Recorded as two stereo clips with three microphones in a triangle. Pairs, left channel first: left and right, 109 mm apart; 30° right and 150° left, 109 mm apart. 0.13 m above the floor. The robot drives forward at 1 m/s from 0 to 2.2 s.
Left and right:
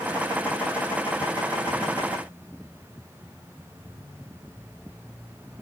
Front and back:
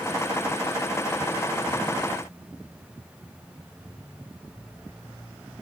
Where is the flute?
No flute in this recording.